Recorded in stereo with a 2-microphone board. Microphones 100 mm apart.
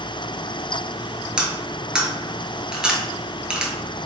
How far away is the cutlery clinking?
About 1.1 m.